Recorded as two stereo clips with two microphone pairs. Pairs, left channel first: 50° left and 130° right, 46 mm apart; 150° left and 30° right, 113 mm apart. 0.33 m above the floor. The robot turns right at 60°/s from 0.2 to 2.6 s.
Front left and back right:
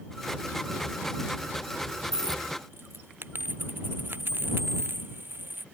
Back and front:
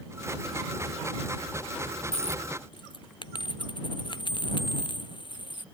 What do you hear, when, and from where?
2.1 s a dropped coin: 165° left; by 5.7 s 165° right